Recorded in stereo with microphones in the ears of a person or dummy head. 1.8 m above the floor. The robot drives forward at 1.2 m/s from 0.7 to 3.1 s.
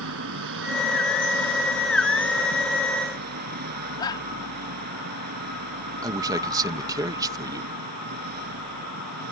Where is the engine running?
65° right (ahead or behind); by 9.3 s 50° right (ahead or behind).